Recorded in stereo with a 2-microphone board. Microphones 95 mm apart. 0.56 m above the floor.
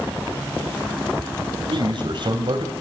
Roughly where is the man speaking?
Right.